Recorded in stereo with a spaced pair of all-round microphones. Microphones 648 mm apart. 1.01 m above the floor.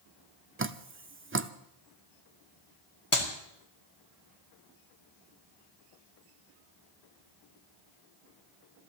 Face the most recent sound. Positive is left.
turn(degrees=50)  # may be behind; listen again after turning